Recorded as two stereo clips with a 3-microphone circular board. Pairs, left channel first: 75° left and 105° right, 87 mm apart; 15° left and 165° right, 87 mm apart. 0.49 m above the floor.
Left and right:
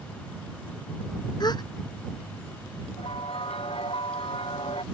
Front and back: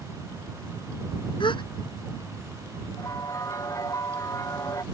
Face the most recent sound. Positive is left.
turn(degrees=70)